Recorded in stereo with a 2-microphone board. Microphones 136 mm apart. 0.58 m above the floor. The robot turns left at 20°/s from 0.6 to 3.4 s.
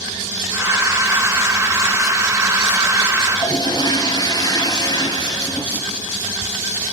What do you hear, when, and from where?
3.3 s a toilet flushing: 25° left (ahead or behind), 3 m; by 5.7 s 30° left (ahead or behind), 3 m